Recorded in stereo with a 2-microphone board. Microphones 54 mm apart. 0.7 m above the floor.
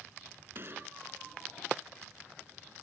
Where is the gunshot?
45° right (ahead or behind).